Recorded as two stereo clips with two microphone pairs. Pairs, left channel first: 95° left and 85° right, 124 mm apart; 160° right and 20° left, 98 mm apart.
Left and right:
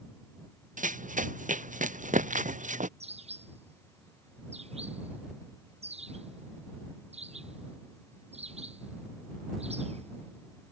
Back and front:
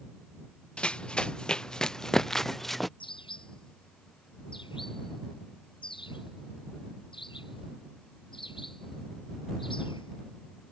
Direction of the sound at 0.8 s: 80° right.